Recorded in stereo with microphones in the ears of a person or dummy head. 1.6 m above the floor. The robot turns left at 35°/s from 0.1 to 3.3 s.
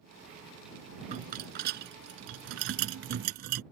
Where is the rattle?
50° right; by 3.6 s 125° right.